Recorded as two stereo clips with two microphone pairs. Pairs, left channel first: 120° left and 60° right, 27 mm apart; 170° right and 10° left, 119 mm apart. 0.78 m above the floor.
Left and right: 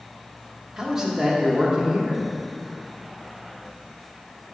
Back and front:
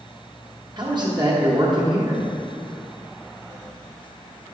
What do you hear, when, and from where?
0.8 s a man speaking: 5° left, 1.2 m